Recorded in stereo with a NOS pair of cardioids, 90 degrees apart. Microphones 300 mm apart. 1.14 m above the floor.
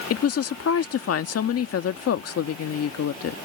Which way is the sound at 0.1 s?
50° left.